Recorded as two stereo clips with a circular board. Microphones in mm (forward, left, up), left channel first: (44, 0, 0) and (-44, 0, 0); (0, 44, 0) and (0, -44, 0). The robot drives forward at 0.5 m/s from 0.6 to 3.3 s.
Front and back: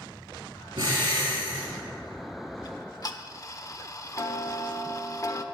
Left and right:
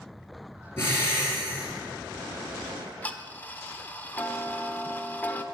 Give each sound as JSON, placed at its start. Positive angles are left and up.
{"t": 0.8, "sound": "breathing", "azimuth_deg": 150, "distance_m": 4.0}
{"t": 2.6, "sound": "ticking", "azimuth_deg": 20, "distance_m": 1.1}